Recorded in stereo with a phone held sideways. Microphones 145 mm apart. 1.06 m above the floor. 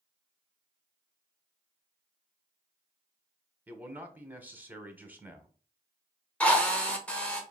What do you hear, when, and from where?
3.7 s a man speaking: 10° right (ahead or behind), 0.9 m
6.4 s a drill: 10° left (ahead or behind), 1.0 m